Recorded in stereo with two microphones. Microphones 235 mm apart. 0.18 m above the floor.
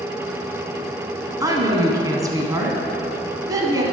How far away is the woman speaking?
About 1.2 m.